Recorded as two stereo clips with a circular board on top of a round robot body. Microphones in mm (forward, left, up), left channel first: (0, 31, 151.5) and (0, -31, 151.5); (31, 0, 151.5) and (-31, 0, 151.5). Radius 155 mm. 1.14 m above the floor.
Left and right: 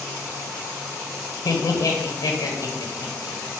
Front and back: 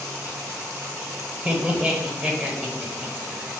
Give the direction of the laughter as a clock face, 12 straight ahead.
8 o'clock.